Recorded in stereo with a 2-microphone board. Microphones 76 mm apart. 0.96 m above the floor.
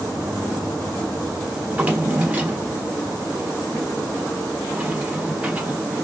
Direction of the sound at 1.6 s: 20° right (ahead or behind).